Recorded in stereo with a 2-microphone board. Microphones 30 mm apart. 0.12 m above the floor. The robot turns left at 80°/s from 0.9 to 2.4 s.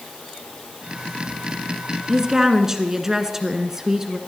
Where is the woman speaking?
25° right (ahead or behind), 1.2 m; by 4.2 s 15° right (ahead or behind), 1.2 m.